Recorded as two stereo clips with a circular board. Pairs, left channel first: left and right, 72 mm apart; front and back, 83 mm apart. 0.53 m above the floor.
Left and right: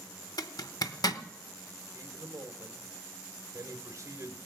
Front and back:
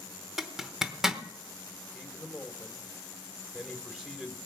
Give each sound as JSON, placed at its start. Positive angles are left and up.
{"t": 0.4, "sound": "a zipper", "azimuth_deg": 95, "distance_m": 0.8}
{"t": 1.9, "sound": "a man speaking", "azimuth_deg": -95, "distance_m": 1.9}